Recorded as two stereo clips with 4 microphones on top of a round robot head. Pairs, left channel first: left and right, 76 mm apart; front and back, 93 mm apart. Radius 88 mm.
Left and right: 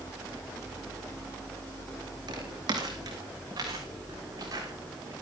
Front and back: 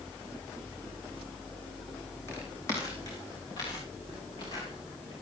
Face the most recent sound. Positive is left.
turn(degrees=-45)